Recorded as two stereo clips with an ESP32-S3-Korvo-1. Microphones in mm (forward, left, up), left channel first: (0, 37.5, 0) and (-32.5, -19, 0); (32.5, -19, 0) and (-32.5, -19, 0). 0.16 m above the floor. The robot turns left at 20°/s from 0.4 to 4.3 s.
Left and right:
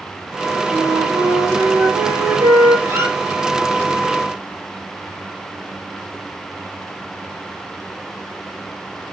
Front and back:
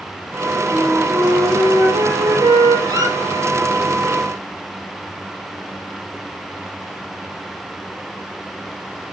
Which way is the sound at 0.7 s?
130° right.